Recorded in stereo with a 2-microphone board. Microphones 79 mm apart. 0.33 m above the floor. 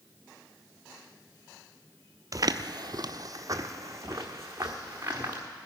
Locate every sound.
2.3 s footsteps: 50° right (ahead or behind), 0.5 m; by 5.4 s 35° right (ahead or behind), 2.5 m